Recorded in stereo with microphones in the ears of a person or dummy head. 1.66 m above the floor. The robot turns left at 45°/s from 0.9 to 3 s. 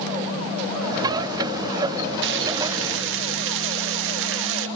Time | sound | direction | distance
2.2 | frying | 70° right | 2 m